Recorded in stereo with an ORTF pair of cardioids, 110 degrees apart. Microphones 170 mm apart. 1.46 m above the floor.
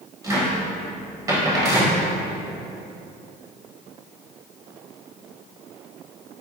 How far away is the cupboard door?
About 0.9 m.